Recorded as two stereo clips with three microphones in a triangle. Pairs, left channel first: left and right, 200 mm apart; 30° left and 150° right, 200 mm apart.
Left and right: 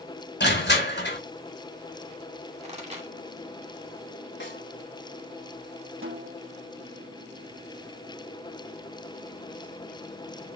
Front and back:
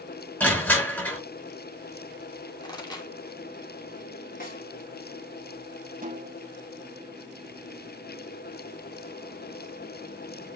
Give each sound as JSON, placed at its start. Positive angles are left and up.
{"t": 0.4, "sound": "crushing", "azimuth_deg": 110, "distance_m": 4.5}
{"t": 2.6, "sound": "a pop", "azimuth_deg": -40, "distance_m": 2.5}
{"t": 4.4, "sound": "a snare drum", "azimuth_deg": 70, "distance_m": 4.5}
{"t": 6.0, "sound": "a snare drum", "azimuth_deg": -105, "distance_m": 1.9}